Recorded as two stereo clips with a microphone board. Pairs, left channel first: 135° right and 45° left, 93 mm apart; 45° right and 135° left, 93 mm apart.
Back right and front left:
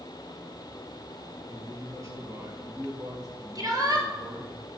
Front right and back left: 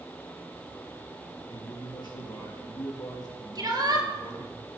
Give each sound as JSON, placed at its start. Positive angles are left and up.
{"t": 1.5, "sound": "a man speaking", "azimuth_deg": -10, "distance_m": 3.5}
{"t": 3.5, "sound": "a shout", "azimuth_deg": 90, "distance_m": 4.0}